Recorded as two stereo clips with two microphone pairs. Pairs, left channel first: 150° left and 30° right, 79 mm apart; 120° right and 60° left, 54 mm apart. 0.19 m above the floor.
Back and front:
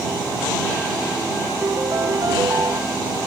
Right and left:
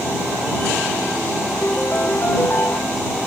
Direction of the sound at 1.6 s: 75° right.